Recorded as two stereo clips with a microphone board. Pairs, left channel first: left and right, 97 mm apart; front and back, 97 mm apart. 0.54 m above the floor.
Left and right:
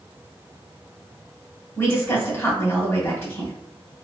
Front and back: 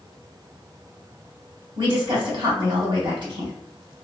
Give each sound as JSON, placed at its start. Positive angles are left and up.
{"t": 1.8, "sound": "a woman speaking", "azimuth_deg": 150, "distance_m": 1.6}